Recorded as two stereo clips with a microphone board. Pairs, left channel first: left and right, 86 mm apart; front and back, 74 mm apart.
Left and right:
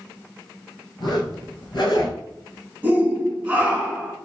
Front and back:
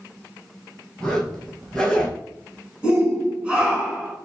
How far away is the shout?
About 1.3 m.